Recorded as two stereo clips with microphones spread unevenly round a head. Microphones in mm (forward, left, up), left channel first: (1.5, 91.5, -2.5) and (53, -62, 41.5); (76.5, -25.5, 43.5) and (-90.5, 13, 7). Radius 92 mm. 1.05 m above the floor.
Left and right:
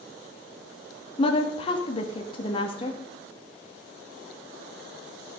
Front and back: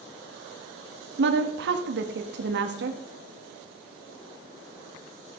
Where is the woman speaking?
165° left, 1.7 m.